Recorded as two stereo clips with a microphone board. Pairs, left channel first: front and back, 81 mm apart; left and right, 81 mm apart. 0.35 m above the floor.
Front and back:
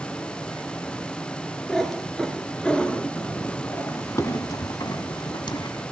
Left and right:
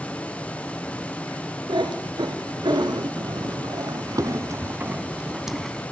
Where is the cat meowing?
90° right, 2.5 m; by 5.8 s 5° left, 1.3 m.